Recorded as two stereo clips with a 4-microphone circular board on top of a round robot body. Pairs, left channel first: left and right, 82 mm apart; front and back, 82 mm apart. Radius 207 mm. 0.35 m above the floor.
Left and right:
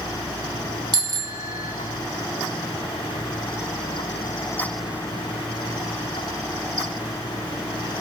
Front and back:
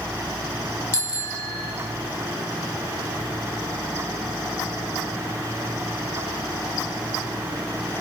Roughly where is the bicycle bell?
Ahead right.